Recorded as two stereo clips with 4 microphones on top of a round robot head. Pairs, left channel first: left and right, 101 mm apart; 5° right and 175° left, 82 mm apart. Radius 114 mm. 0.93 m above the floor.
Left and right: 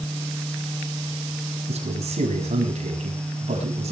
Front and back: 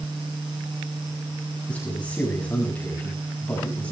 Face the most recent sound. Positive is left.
turn(degrees=-80)